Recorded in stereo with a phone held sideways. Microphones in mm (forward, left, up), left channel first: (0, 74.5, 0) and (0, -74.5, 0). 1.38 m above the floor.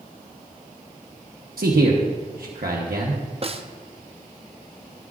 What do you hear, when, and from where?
1.6 s a man speaking: 75° right (ahead or behind), 1.0 m
3.4 s a snare drum: 40° right (ahead or behind), 0.5 m